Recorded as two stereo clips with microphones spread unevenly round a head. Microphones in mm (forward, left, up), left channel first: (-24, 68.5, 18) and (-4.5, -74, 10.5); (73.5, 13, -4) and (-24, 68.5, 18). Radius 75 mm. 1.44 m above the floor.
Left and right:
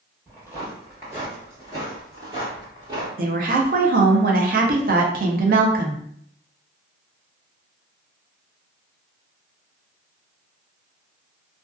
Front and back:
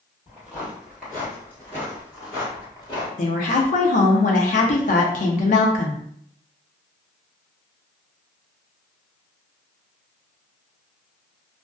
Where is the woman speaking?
55° right, 0.5 m.